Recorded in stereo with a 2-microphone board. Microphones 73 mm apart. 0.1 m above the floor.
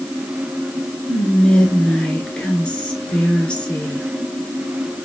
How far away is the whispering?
About 1.1 m.